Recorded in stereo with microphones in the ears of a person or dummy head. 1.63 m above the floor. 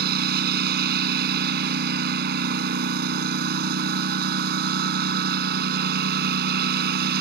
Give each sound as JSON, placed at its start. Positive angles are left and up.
{"t": 0.0, "sound": "a lawn mower", "side_deg": -50}